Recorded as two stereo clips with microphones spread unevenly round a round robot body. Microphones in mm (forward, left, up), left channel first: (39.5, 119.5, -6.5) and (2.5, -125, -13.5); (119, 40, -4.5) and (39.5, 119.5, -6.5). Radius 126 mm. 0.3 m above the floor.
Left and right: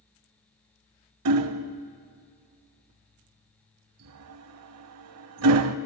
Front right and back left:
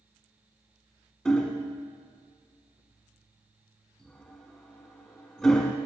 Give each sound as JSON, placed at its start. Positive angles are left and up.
{"t": 1.2, "sound": "hammering", "azimuth_deg": -130, "distance_m": 0.5}